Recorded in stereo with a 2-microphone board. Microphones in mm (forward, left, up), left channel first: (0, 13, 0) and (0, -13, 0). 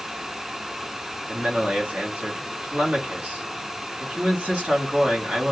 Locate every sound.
1.3 s a man speaking: 55° right (ahead or behind), 1.6 m